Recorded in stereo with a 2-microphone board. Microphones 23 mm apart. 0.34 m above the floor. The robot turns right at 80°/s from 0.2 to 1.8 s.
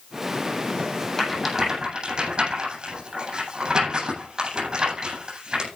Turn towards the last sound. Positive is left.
turn(degrees=-35)  # may be behind; listen again after turning